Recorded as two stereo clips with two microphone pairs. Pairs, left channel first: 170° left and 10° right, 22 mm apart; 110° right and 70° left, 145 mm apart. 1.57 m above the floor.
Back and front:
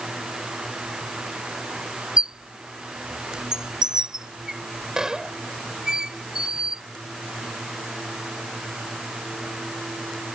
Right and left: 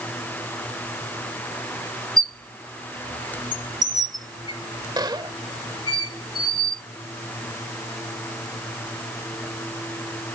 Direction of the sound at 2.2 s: 35° left.